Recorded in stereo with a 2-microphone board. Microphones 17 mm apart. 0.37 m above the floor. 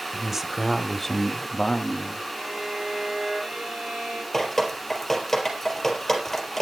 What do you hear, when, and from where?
0.1 s a man speaking: 25° right (ahead or behind), 1.7 m; by 2.2 s 60° left (ahead or behind), 1.8 m
2.3 s a violin: 60° right (ahead or behind), 9 m
4.3 s dripping: 15° left (ahead or behind), 4 m